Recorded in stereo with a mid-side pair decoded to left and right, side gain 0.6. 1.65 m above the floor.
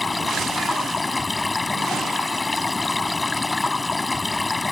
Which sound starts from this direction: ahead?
Running water, at 0.0 s.